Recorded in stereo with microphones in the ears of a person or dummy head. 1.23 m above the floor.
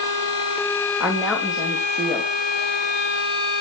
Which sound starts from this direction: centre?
A woman speaking, at 1.0 s.